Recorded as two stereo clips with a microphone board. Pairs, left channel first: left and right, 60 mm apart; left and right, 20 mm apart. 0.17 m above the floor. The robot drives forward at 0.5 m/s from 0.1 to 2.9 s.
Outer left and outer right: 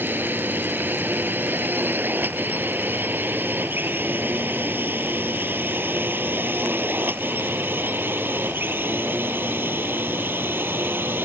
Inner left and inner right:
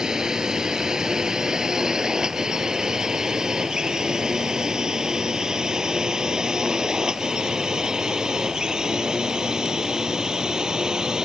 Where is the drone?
35° right (ahead or behind).